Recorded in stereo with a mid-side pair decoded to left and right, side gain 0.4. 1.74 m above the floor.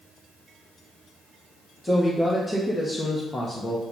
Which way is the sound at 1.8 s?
15° left.